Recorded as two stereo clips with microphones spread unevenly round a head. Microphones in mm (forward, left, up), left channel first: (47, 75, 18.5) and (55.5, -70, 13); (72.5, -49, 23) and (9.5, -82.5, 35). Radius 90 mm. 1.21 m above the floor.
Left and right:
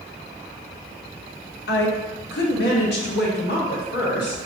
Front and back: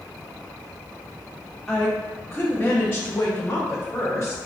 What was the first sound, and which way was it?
A woman speaking, 115° left.